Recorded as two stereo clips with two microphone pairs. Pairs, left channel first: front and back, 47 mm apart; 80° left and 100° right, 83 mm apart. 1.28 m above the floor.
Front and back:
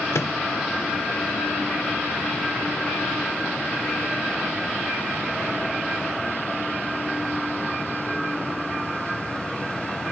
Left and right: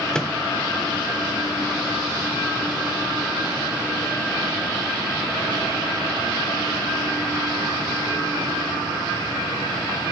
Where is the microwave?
Straight ahead, 0.8 m.